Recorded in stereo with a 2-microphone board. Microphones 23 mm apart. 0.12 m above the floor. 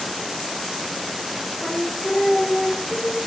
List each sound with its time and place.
1.6 s singing: 5° left (ahead or behind), 5.5 m